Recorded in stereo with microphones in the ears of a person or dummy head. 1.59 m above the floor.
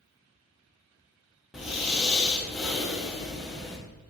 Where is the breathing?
Centre (ahead or behind), 1.6 m.